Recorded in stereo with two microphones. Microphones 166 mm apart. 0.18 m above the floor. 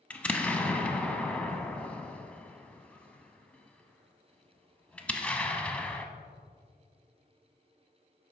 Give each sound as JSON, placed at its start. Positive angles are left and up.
{"t": 0.1, "sound": "an explosion", "side_deg": 5, "distance_m": 0.7}